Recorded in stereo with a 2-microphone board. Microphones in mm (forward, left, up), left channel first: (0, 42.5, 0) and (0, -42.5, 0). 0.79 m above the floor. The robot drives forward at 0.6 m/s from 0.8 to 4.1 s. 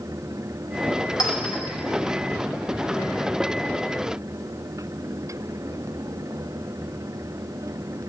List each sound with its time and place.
1.2 s a clink: 55° left (ahead or behind), 1.1 m; by 1.6 s 65° left (ahead or behind), 1.0 m